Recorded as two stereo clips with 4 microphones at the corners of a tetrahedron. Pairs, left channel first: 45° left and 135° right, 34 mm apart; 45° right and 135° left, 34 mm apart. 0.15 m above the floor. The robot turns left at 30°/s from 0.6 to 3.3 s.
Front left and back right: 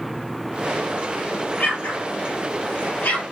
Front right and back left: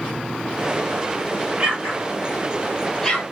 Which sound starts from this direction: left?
An explosion, at 1.6 s.